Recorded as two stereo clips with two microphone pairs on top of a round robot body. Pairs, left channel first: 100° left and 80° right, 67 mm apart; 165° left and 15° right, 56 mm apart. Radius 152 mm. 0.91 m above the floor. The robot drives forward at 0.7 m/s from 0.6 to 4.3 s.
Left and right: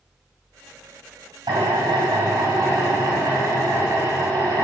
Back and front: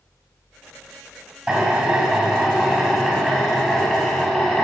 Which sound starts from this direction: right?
A drill, at 1.5 s.